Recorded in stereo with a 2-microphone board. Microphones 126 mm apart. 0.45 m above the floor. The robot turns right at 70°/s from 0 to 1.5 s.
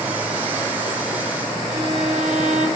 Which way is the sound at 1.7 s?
90° right.